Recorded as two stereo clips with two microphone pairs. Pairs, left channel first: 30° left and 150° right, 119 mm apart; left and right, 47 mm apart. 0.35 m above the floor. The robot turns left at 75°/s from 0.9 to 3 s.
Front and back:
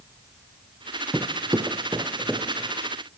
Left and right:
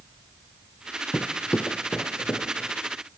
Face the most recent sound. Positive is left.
turn(degrees=80)